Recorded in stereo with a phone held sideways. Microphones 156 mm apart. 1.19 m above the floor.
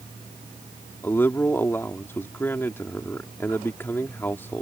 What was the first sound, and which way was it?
A man speaking, 15° left (ahead or behind).